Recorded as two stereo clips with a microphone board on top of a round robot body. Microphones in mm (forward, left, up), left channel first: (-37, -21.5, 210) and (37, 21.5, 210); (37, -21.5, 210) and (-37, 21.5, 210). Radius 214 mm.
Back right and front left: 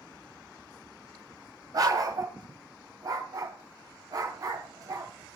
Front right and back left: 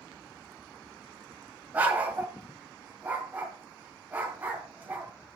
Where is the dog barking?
80° left, 1.5 m.